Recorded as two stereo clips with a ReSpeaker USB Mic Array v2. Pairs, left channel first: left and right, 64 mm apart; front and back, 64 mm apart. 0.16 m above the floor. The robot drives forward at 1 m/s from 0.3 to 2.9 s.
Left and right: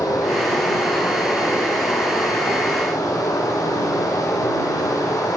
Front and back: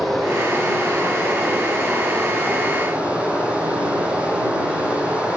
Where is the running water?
85° left, 7 m; by 5.4 s 110° left, 7 m.